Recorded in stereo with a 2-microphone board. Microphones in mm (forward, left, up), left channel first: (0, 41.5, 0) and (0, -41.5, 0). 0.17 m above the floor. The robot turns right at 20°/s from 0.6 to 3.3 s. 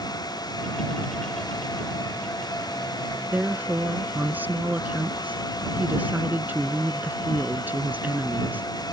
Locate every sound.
3.3 s a woman speaking: 20° right (ahead or behind)